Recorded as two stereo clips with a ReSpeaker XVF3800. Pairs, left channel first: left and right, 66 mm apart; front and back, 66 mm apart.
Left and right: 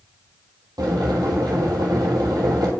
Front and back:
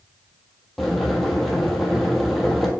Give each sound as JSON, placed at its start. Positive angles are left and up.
{"t": 0.8, "sound": "boiling", "azimuth_deg": -90, "distance_m": 1.4}